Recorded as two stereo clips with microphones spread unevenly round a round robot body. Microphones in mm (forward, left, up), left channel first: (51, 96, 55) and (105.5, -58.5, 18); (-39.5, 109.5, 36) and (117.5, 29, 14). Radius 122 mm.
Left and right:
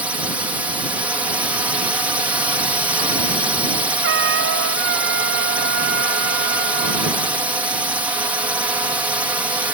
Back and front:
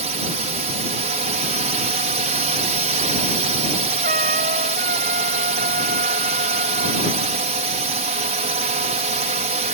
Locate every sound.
0.0 s a drone: 5° right
4.0 s a trumpet: 90° right